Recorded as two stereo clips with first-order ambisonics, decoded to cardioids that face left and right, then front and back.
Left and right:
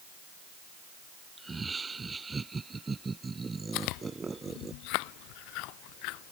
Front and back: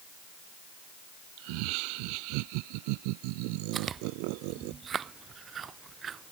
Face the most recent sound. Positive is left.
turn(degrees=115)